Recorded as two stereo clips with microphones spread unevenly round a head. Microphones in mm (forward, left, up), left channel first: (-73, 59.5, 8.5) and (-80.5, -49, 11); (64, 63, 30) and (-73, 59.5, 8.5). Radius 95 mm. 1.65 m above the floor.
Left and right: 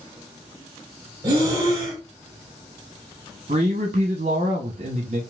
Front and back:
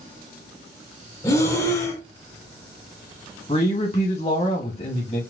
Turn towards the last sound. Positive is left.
turn(degrees=-50)